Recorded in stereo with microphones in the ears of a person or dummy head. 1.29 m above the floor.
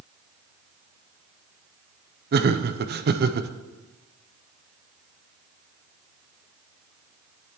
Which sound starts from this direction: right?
Laughter, at 2.3 s.